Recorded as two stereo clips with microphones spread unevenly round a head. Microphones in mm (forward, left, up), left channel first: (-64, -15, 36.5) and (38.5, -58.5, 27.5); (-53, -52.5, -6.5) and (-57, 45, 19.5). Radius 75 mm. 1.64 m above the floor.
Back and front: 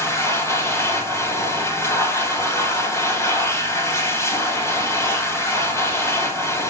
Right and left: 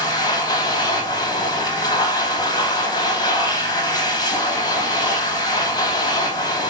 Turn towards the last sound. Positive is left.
turn(degrees=-135)